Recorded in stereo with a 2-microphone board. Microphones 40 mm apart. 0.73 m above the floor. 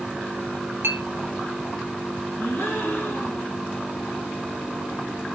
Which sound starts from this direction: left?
A gasp, at 2.4 s.